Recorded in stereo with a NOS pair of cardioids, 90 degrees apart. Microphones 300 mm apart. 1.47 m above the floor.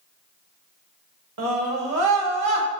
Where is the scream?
60° right, 1.3 m.